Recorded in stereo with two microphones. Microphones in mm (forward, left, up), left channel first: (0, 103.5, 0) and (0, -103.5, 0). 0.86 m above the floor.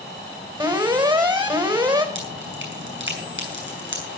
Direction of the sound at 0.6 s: 25° right (ahead or behind).